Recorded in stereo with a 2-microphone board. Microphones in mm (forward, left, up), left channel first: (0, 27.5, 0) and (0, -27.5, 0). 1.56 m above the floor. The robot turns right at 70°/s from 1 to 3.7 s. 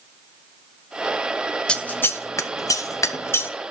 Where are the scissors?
15° left (ahead or behind), 0.6 m; by 3.5 s 35° left (ahead or behind), 0.6 m.